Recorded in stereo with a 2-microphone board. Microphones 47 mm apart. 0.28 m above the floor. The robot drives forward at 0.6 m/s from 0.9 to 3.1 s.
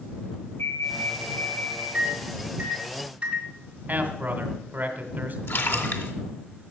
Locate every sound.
0.6 s an alarm: 60° left (ahead or behind), 7.5 m; by 1.8 s 55° left (ahead or behind), 8 m
1.9 s a microwave: 30° right (ahead or behind), 2 m; by 3.5 s 25° right (ahead or behind), 2.5 m
3.9 s a man speaking: 40° right (ahead or behind), 2 m
5.5 s a splash: 55° left (ahead or behind), 2 m